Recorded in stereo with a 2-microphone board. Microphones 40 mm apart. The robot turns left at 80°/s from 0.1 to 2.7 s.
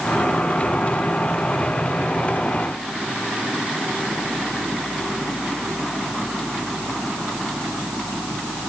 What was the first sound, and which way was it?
Only background noise.